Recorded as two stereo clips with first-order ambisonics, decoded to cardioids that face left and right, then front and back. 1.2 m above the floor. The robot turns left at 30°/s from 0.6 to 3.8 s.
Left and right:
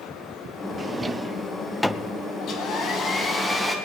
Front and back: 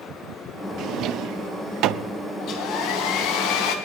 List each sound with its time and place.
0.8 s a drawer: 155° right, 0.6 m; by 2.1 s 165° left, 0.6 m
2.4 s a hair dryer: 40° left, 3 m; by 3.8 s straight ahead, 3 m